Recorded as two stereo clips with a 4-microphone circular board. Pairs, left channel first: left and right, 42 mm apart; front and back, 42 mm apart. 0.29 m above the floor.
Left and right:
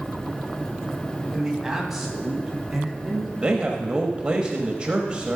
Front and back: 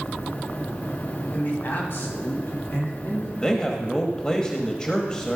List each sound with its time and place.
1.3 s a man speaking: 20° right, 1.8 m; by 3.3 s straight ahead, 4 m
3.4 s a man speaking: 45° right, 1.2 m